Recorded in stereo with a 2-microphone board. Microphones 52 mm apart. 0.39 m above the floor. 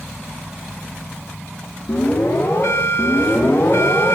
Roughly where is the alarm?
Left.